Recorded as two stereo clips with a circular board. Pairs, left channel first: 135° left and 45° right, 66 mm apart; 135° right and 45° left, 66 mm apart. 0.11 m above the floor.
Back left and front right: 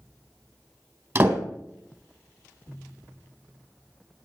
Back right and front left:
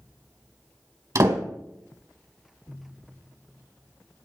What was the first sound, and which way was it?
A door slam, 15° left.